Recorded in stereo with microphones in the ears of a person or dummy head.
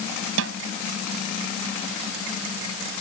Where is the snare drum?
70° right (ahead or behind).